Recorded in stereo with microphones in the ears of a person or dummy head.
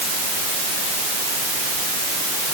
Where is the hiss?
I don't hear a hiss.